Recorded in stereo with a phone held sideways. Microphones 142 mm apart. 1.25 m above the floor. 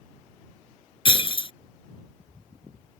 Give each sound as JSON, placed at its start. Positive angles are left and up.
{"t": 1.1, "sound": "breaking glass", "side_deg": 40}